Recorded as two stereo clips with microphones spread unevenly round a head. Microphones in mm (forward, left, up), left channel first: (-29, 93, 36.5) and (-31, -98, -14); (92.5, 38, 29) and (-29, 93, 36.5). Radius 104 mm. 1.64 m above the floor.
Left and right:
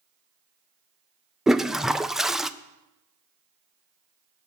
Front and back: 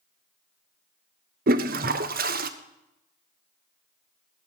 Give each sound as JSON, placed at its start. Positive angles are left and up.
{"t": 1.5, "sound": "a toilet flushing", "azimuth_deg": -175, "distance_m": 0.5}